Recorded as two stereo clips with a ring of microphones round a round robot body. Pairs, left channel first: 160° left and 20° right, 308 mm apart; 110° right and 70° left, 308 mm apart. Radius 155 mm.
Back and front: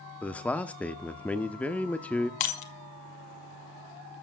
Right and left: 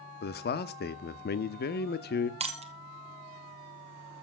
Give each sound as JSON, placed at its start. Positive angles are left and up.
{"t": 0.2, "sound": "a man speaking", "azimuth_deg": -120, "distance_m": 0.7}
{"t": 2.4, "sound": "breaking glass", "azimuth_deg": 140, "distance_m": 2.0}